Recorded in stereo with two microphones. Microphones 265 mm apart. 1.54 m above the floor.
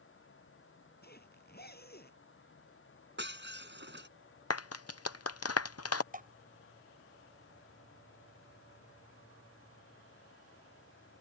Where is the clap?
65° left (ahead or behind).